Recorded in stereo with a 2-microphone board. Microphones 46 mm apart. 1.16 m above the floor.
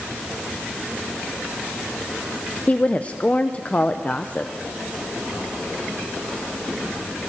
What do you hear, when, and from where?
2.7 s a woman speaking: 30° left (ahead or behind), 0.5 m